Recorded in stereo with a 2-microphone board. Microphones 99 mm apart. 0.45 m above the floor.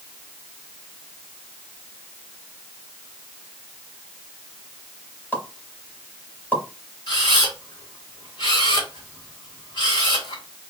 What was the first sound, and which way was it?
A pop, 20° left (ahead or behind).